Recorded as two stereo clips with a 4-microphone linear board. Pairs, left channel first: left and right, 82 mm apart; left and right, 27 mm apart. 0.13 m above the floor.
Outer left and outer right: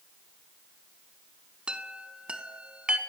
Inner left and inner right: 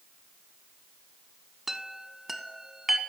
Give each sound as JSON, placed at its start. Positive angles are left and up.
{"t": 1.7, "sound": "a chime", "side_deg": -15, "distance_m": 0.5}